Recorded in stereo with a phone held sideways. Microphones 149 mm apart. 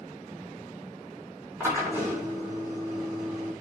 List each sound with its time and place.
1.6 s a drill: 15° right (ahead or behind), 4.5 m